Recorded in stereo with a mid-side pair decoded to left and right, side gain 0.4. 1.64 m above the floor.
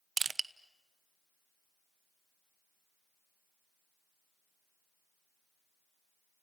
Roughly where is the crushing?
Ahead right.